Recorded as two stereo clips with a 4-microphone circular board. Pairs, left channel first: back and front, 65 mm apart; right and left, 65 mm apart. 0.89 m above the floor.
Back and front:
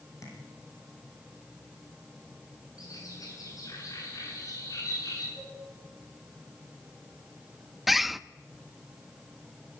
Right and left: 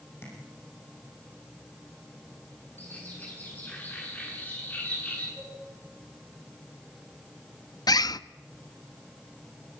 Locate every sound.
0.2 s tapping: 140° right, 9.5 m
2.8 s a bird: 155° right, 9.5 m
5.4 s a cowbell: 175° left, 7 m
7.9 s a bird: 85° right, 0.6 m